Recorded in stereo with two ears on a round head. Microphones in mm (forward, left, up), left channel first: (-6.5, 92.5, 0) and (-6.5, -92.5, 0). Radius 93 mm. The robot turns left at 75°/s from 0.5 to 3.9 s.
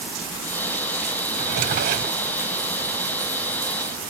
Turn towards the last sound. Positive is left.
turn(degrees=115)